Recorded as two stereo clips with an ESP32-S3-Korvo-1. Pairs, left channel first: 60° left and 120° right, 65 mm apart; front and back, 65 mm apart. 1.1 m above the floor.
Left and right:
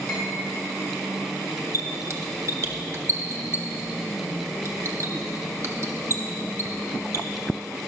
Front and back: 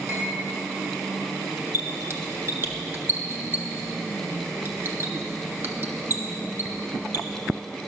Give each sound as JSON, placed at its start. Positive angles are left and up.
{"t": 0.1, "sound": "cutlery clinking", "azimuth_deg": 135, "distance_m": 3.5}
{"t": 1.7, "sound": "a squeak", "azimuth_deg": -145, "distance_m": 0.8}